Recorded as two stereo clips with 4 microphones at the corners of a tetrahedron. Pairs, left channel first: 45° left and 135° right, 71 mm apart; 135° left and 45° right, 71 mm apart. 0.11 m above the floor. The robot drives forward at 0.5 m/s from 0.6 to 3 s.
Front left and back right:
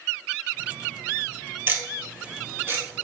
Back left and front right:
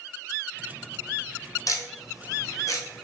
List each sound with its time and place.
1.7 s ticking: 170° left, 1.4 m